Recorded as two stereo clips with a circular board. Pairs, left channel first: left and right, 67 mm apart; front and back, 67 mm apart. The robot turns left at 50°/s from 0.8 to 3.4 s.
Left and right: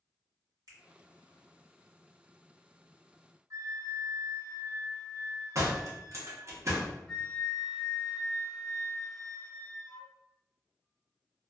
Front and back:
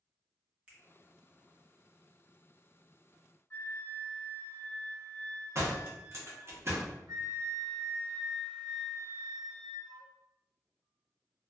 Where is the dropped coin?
I don't hear a dropped coin.